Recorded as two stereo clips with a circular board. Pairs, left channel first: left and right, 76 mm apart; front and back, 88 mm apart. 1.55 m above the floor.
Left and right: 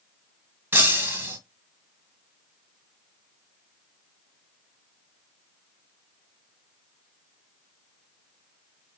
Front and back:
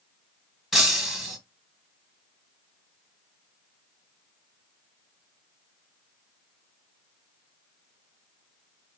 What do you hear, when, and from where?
0.7 s breaking glass: 100° right, 1.5 m